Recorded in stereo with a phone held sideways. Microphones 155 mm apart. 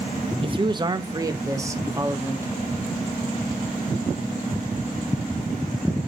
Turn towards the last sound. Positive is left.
turn(degrees=-15)  # may be behind; listen again after turning